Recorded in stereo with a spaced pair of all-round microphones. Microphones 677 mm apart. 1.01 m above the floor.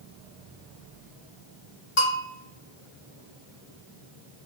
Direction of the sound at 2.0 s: 45° left (ahead or behind).